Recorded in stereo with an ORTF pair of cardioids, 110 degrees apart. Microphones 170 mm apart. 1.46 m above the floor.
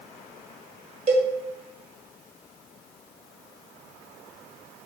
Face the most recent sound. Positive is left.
turn(degrees=-40)